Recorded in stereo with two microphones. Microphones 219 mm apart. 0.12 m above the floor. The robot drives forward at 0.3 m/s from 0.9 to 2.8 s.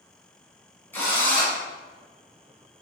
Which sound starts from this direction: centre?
A drill, at 0.9 s.